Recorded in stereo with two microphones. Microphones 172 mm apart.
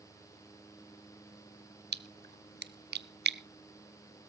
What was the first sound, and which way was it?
A splash, 70° right (ahead or behind).